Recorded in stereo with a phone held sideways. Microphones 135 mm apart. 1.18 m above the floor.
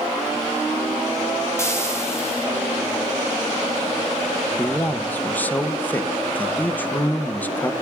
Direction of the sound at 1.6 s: 20° left (ahead or behind).